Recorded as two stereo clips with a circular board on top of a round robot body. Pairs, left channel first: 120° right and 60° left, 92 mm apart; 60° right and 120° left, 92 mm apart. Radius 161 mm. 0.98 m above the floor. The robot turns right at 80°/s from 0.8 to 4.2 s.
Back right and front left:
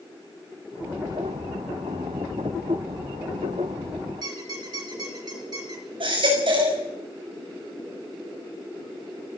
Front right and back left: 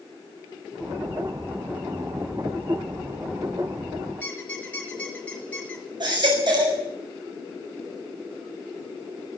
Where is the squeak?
15° left, 2 m.